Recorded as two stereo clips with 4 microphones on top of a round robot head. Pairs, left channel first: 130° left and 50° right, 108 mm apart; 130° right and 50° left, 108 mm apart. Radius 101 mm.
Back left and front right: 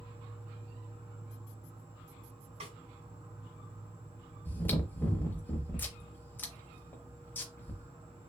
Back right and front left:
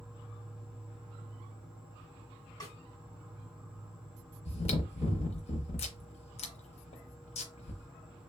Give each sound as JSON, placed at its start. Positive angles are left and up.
{"t": 0.0, "sound": "an insect", "azimuth_deg": -30, "distance_m": 2.0}
{"t": 2.6, "sound": "a snare drum", "azimuth_deg": -70, "distance_m": 1.8}
{"t": 4.5, "sound": "chewing", "azimuth_deg": -160, "distance_m": 0.7}